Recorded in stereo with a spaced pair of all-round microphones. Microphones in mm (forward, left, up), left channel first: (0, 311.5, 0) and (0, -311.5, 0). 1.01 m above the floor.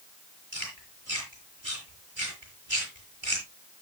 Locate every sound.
0.5 s chewing: 50° right (ahead or behind), 8 m